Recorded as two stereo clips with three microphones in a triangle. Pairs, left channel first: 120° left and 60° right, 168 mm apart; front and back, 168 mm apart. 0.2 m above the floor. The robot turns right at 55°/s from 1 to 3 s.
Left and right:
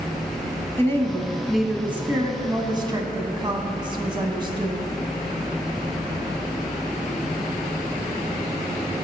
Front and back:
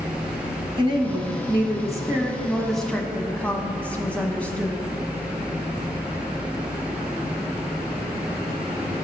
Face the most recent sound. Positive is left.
turn(degrees=-70)